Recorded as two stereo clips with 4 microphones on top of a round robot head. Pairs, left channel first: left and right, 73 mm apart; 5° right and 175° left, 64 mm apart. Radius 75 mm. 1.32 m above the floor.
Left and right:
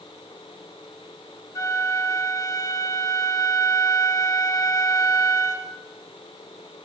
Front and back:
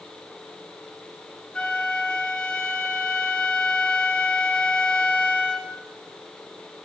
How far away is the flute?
About 0.8 m.